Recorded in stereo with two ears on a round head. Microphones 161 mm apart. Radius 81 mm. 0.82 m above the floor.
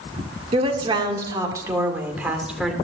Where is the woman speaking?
35° right (ahead or behind), 2.5 m; by 2.7 s centre (ahead or behind), 2.5 m.